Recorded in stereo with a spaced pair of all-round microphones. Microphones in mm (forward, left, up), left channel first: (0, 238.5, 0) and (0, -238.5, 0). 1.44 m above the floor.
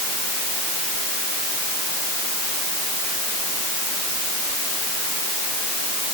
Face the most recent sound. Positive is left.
No sound to turn to.